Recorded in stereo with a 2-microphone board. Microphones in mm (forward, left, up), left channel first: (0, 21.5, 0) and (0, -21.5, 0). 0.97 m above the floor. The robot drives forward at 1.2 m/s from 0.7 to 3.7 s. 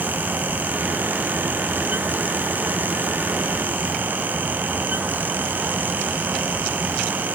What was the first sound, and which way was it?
Only background noise.